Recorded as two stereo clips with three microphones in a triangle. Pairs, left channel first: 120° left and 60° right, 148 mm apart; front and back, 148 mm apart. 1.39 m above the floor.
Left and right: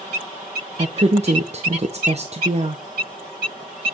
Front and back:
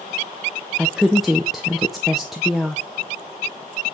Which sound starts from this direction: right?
A woman speaking, at 0.8 s.